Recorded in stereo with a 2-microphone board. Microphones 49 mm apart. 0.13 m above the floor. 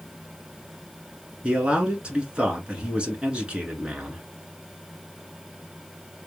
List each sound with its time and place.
1.4 s a man speaking: 25° right (ahead or behind), 1.2 m